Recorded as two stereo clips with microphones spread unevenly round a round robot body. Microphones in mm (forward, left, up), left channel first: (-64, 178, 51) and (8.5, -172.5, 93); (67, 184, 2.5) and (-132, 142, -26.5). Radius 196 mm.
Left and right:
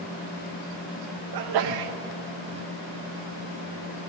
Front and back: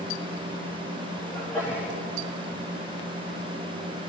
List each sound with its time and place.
1.3 s a sneeze: 75° right, 0.6 m